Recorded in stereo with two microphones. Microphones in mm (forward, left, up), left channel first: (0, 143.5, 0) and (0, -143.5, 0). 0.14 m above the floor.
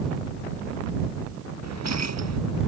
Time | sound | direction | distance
1.6 | keys jangling | 65° right (ahead or behind) | ?